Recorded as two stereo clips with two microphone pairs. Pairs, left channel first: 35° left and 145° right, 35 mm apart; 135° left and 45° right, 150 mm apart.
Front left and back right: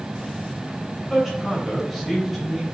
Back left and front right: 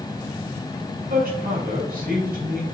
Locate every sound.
1.1 s a man speaking: 45° right, 4 m